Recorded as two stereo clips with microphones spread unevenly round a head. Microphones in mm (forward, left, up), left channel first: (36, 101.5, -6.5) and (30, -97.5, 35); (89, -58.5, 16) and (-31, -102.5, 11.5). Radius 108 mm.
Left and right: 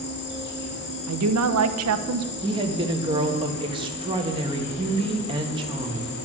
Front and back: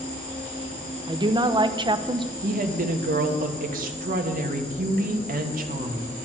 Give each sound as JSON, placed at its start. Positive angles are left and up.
{"t": 0.0, "sound": "an insect", "azimuth_deg": 55, "distance_m": 2.5}
{"t": 1.1, "sound": "a woman speaking", "azimuth_deg": -110, "distance_m": 1.1}
{"t": 2.4, "sound": "a woman speaking", "azimuth_deg": -165, "distance_m": 1.7}